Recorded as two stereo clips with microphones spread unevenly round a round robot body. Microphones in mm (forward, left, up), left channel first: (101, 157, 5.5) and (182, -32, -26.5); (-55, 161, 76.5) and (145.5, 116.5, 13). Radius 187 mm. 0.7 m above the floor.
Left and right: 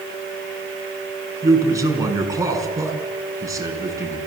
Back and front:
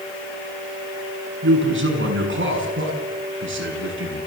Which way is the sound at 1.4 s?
10° left.